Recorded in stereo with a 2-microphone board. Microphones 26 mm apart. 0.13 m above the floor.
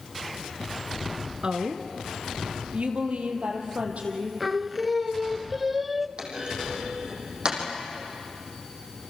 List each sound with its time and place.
1.4 s a woman speaking: 40° right (ahead or behind), 1.7 m; by 4.3 s 65° right (ahead or behind), 5.5 m
4.4 s singing: 5° right (ahead or behind), 0.6 m
6.2 s a clunk: 35° right (ahead or behind), 5.5 m